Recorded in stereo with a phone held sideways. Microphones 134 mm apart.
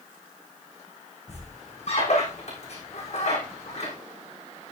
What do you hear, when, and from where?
1.3 s a squeak: 55° left (ahead or behind), 6 m